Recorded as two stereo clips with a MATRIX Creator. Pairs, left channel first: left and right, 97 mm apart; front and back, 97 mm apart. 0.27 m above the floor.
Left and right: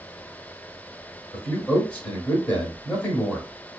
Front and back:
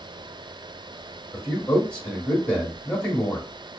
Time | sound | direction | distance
1.3 | a man speaking | 50° left | 0.9 m